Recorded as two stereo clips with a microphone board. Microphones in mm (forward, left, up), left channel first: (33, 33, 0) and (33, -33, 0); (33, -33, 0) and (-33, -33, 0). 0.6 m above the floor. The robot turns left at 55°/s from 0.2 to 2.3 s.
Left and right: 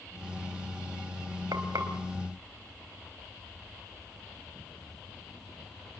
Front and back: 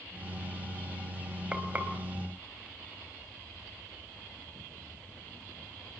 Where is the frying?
105° right, 3.5 m; by 1.9 s 125° right, 3.5 m.